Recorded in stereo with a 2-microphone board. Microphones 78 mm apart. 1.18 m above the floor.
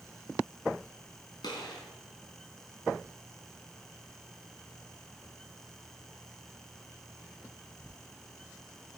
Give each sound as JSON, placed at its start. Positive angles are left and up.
{"t": 1.4, "sound": "a gunshot", "side_deg": 70, "distance_m": 3.5}